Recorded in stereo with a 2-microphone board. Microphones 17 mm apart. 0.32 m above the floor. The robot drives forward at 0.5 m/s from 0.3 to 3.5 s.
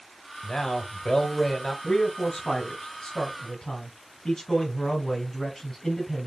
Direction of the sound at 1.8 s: 20° left (ahead or behind).